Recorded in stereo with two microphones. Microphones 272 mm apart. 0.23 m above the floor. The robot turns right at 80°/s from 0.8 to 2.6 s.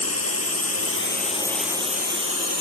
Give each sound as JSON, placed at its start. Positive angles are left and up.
{"t": 0.0, "sound": "a drone", "side_deg": 60}